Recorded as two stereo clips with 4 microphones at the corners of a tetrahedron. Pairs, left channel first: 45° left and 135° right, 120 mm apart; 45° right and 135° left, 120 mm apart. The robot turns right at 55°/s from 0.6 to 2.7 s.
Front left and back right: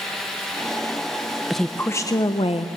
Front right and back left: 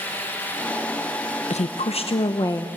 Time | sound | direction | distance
1.5 | a woman speaking | 45° right | 0.6 m